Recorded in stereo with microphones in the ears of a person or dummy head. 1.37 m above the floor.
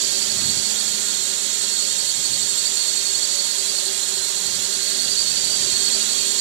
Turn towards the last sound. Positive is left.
turn(degrees=-60)  # may be behind; listen again after turning